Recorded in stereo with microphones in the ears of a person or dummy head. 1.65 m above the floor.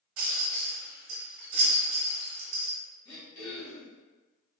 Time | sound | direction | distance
0.2 | a rattle | 50° right (ahead or behind) | 0.9 m
3.0 | throat clearing | 30° left (ahead or behind) | 1.5 m